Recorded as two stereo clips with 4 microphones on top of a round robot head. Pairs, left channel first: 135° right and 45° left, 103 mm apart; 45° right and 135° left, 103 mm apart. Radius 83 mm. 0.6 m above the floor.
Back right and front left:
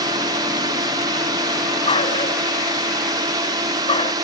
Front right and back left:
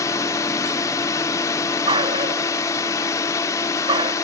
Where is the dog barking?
175° right.